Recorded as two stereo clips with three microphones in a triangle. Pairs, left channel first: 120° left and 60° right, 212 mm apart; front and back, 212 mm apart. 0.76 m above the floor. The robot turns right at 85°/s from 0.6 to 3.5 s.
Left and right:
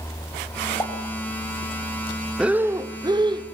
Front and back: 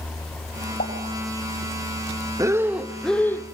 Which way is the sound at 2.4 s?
140° right.